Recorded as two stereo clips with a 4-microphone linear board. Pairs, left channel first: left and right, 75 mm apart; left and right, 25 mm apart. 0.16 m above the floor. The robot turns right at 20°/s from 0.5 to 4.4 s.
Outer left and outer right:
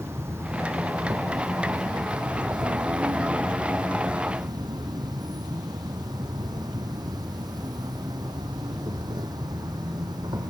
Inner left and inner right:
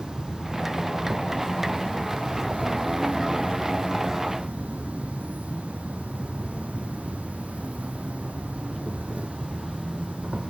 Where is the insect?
145° right, 1.9 m; by 10.5 s 65° right, 1.9 m.